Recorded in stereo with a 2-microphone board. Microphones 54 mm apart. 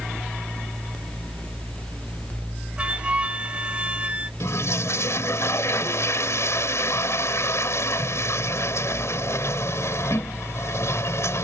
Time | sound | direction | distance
2.8 | a flute | 25° right (ahead or behind) | ?
4.4 | a toilet flushing | 65° left (ahead or behind) | ?